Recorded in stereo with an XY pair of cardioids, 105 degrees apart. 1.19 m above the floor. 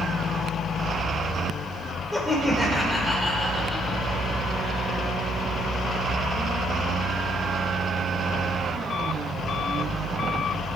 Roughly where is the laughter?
Ahead.